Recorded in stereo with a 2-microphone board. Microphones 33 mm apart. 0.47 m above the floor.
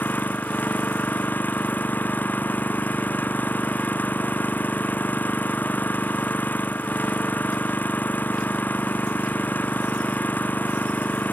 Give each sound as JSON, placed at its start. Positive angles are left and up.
{"t": 0.0, "sound": "an engine running", "side_deg": 60}